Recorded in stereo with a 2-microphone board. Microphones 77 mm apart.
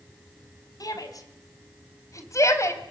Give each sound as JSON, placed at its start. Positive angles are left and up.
{"t": 0.8, "sound": "a shout", "side_deg": 55, "distance_m": 5.5}